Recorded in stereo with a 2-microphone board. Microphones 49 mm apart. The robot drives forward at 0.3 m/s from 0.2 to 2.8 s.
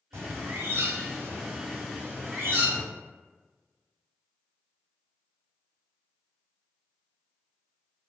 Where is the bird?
80° right, 0.8 m; by 2.8 s 40° right (ahead or behind), 1.2 m.